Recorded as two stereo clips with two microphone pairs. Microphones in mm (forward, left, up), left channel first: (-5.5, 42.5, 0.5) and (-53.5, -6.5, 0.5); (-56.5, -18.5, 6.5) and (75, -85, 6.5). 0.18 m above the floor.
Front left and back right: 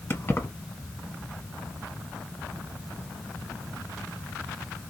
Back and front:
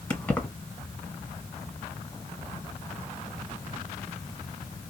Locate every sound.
0.1 s keys jangling: 75° left, 1.2 m